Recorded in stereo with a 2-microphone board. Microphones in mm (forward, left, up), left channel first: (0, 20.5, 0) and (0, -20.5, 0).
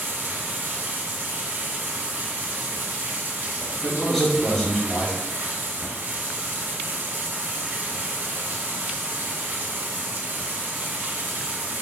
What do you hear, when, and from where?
0.0 s running water: 60° right (ahead or behind), 1.1 m
3.8 s a man speaking: 15° left (ahead or behind), 1.2 m